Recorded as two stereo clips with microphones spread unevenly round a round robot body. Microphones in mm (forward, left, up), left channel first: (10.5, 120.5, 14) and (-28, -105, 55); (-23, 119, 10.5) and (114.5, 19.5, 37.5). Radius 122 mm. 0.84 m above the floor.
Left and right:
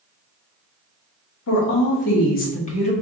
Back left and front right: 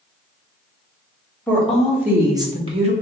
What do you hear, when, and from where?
1.5 s a woman speaking: 65° left, 1.4 m; by 2.9 s 20° left, 1.4 m